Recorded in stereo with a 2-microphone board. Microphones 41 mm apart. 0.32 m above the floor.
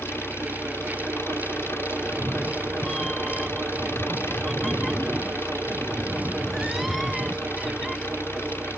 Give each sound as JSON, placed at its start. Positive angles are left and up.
{"t": 0.0, "sound": "an engine running", "side_deg": 75}
{"t": 2.0, "sound": "a cat meowing", "side_deg": 0}